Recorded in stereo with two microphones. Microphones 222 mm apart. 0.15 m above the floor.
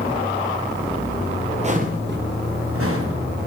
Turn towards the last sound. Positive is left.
turn(degrees=-85)